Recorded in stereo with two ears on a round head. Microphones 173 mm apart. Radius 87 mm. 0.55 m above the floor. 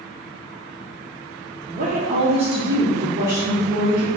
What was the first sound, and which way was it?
A woman speaking, 40° right (ahead or behind).